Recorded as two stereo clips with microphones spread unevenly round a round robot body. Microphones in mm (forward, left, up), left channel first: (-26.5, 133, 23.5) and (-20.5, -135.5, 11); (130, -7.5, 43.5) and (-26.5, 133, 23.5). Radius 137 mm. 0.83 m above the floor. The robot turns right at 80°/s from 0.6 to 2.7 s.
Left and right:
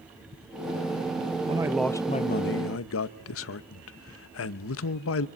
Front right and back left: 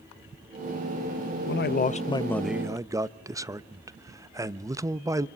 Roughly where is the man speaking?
Ahead right.